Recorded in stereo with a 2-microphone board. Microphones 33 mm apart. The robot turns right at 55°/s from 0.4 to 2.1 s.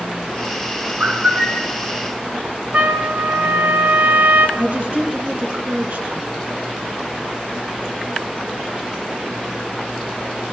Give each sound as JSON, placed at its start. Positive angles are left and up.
{"t": 1.0, "sound": "a bird", "azimuth_deg": -55, "distance_m": 5.5}
{"t": 2.7, "sound": "a trumpet", "side_deg": -60, "distance_m": 2.0}
{"t": 4.6, "sound": "a woman speaking", "side_deg": -60, "distance_m": 3.5}